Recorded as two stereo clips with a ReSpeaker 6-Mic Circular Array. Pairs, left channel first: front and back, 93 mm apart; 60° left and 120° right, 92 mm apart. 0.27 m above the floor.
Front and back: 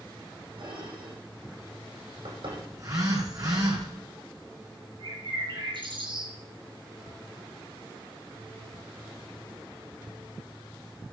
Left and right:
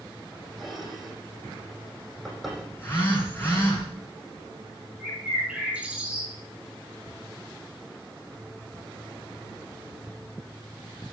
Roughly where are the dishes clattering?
Behind left.